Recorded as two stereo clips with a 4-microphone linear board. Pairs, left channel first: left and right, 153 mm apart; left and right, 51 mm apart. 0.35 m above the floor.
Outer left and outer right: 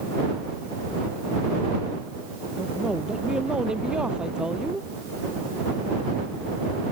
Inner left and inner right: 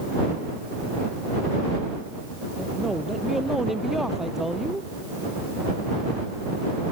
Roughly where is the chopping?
I don't hear chopping.